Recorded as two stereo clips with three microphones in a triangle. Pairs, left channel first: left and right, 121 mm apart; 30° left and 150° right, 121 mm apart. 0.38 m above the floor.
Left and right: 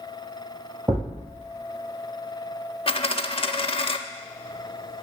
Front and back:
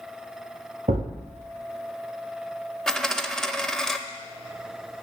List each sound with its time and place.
0.9 s a thud: 150° right, 3.5 m
2.9 s a dropped coin: 115° left, 0.5 m